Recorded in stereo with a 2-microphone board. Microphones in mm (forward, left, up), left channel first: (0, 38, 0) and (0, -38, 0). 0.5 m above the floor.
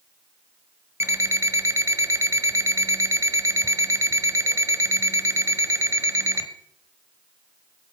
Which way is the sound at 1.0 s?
40° right (ahead or behind).